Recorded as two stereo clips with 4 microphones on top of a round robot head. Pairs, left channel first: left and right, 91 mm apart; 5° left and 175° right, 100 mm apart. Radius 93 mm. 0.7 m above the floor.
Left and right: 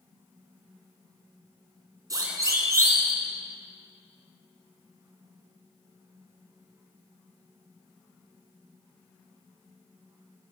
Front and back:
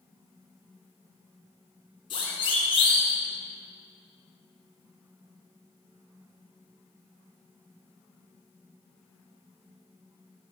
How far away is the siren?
About 6.5 m.